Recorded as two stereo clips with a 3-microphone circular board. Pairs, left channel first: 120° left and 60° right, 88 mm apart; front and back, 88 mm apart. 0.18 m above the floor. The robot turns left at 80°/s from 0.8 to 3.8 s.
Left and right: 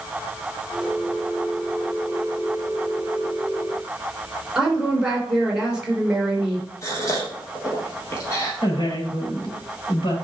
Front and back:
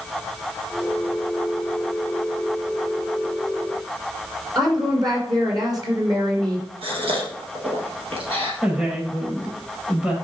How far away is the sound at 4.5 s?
About 3 m.